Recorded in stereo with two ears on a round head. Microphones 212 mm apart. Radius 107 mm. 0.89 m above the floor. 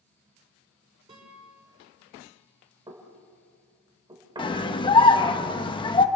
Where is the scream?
20° left (ahead or behind), 1.3 m.